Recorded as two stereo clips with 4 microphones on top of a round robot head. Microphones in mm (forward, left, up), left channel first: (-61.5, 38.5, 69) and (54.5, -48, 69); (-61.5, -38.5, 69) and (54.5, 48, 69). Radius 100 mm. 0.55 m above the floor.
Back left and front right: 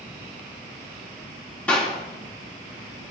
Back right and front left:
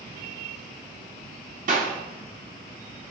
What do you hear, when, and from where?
1.7 s a clap: 60° left, 6 m